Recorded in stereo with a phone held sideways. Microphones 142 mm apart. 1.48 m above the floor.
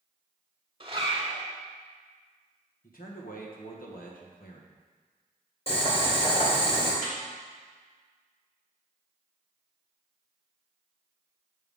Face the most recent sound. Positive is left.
turn(degrees=60)  # may be behind; listen again after turning